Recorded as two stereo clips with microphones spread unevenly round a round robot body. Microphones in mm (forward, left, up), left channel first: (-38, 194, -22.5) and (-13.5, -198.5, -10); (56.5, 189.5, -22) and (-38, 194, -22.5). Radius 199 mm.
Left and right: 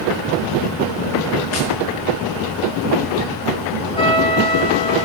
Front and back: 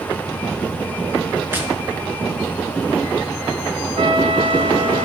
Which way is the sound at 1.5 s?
110° left.